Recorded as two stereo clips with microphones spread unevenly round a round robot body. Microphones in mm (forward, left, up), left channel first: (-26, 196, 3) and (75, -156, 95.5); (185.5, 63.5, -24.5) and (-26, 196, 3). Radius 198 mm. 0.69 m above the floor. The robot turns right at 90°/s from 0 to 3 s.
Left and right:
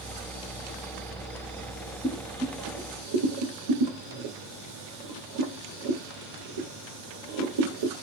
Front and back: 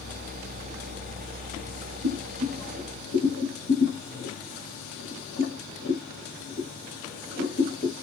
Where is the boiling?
165° right, 1.5 m; by 8.0 s 80° right, 1.5 m.